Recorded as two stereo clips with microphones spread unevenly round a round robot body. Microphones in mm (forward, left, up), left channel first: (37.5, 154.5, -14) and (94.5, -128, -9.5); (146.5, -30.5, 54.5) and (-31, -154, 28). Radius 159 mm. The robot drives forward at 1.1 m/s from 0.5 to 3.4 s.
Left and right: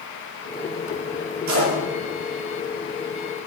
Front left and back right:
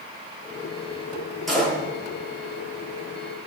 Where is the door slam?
55° right, 8.5 m.